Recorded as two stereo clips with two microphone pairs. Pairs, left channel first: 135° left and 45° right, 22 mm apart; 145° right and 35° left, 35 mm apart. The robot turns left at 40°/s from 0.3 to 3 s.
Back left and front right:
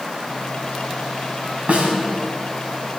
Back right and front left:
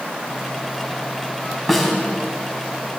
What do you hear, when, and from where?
1.7 s a snare drum: 45° right, 3 m; by 1.9 s 55° right, 3 m